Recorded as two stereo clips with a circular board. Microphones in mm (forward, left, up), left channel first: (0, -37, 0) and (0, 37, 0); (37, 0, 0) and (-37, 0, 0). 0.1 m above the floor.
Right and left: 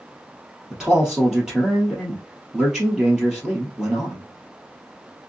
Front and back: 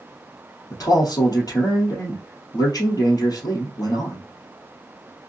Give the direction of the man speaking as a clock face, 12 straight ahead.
12 o'clock.